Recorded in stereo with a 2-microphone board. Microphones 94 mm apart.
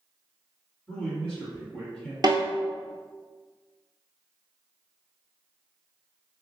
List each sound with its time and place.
0.9 s a man speaking: 10° left (ahead or behind), 1.9 m
2.2 s a snare drum: 45° right (ahead or behind), 0.7 m